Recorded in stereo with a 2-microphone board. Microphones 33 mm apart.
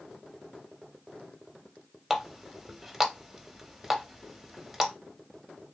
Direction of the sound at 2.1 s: 5° right (ahead or behind).